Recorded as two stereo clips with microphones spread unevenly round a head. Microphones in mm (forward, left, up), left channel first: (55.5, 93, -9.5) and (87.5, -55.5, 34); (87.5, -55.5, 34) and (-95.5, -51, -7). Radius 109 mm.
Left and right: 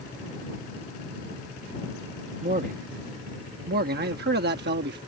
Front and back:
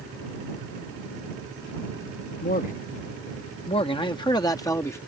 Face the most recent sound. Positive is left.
turn(degrees=-80)